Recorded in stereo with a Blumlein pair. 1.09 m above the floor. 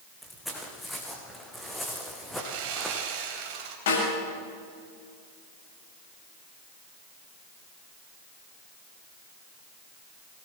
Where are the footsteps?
5° left, 3.5 m.